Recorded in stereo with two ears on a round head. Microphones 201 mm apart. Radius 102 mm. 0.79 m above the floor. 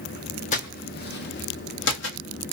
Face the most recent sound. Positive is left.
turn(degrees=60)  # may be behind; listen again after turning